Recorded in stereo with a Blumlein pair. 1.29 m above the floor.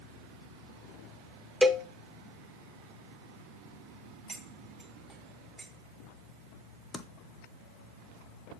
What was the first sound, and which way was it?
A cowbell, straight ahead.